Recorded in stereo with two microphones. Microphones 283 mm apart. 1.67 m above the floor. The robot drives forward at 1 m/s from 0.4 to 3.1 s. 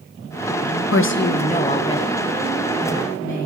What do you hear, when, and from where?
0.9 s a woman speaking: 55° left (ahead or behind), 0.6 m; by 3.5 s 10° left (ahead or behind), 2.5 m